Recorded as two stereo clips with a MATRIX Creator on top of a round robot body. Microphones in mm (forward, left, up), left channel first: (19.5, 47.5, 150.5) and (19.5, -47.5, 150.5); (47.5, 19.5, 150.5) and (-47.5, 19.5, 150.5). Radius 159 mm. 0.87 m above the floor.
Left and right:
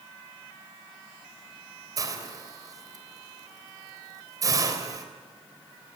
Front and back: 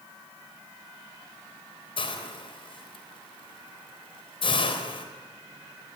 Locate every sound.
2.0 s a hiss: 35° right, 3.5 m